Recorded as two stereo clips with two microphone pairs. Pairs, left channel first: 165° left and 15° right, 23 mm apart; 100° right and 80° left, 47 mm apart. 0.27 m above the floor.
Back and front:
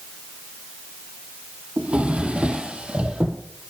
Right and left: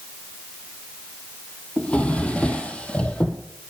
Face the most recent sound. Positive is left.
turn(degrees=-35)